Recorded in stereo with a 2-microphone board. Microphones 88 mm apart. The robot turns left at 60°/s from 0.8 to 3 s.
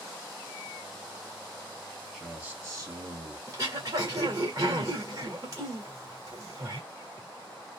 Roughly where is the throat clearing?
Right.